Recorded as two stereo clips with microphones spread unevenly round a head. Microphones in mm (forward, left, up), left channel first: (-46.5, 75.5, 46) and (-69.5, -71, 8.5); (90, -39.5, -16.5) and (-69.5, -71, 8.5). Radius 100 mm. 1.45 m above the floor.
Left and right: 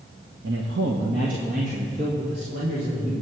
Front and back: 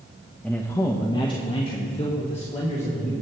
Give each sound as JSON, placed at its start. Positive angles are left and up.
{"t": 0.4, "sound": "a man speaking", "azimuth_deg": -75, "distance_m": 1.0}